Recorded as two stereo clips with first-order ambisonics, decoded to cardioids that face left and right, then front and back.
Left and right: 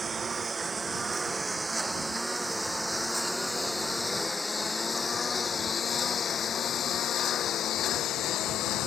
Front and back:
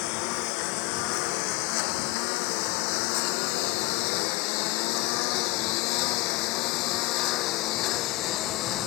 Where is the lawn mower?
15° right; by 8.9 s 45° left.